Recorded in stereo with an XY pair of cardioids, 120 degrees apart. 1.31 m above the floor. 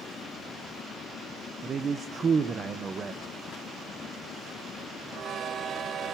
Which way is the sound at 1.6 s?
35° right.